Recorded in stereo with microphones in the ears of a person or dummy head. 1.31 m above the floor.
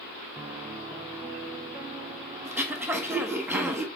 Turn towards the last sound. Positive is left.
turn(degrees=-15)  # may be behind; listen again after turning